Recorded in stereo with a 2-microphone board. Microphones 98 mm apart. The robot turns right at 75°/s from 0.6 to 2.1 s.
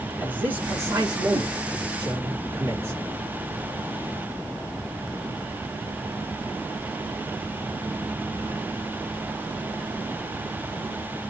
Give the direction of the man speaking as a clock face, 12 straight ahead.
5 o'clock.